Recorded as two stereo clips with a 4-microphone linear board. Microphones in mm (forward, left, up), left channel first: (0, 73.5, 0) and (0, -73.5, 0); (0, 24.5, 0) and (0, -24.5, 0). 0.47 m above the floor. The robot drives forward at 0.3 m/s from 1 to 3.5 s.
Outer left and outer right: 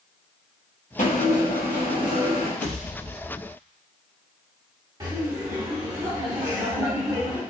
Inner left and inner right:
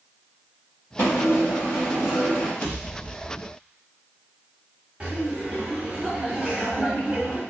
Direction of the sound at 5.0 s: 25° right (ahead or behind).